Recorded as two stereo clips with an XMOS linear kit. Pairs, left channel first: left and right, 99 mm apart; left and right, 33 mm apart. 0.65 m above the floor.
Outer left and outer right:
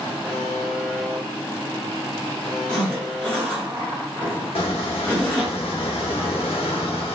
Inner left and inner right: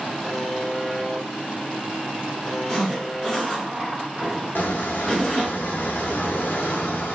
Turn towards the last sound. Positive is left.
turn(degrees=75)  # may be behind; listen again after turning